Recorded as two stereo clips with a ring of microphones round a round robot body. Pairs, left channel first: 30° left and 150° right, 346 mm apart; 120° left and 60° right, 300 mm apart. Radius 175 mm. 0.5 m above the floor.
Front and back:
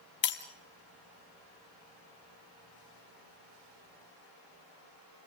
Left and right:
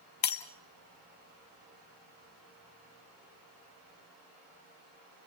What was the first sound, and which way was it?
Breaking glass, 90° left.